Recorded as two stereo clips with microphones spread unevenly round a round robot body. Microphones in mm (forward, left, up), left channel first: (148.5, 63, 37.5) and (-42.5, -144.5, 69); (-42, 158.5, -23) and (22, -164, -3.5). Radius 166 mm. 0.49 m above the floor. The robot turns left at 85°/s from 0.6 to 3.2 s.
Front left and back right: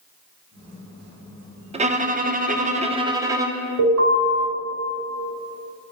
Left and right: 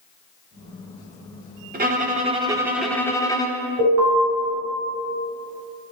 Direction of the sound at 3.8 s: 115° right.